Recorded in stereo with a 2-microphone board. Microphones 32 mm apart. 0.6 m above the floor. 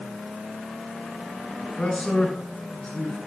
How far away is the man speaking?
About 8 m.